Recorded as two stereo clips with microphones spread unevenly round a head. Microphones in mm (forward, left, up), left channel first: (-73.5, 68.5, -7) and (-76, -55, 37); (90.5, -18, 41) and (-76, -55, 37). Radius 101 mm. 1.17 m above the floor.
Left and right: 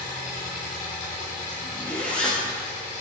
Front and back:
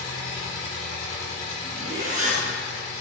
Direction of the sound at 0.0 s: 70° left.